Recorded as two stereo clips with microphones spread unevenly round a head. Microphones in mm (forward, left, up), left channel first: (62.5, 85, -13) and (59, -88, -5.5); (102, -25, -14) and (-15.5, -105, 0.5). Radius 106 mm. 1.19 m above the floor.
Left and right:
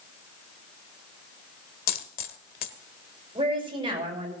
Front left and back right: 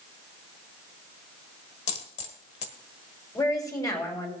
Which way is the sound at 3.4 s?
30° right.